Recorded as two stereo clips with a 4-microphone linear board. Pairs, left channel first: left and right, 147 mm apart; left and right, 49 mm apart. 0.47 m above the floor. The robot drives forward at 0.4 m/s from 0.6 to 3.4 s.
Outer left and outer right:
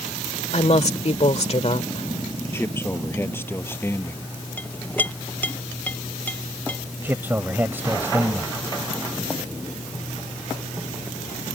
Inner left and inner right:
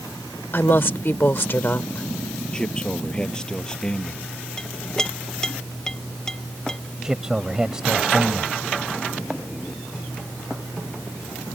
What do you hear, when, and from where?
0.5 s a woman speaking: 50° left (ahead or behind)
2.5 s a man speaking: 15° left (ahead or behind)
4.6 s a clink: 10° left (ahead or behind)
7.0 s a man speaking: 15° right (ahead or behind)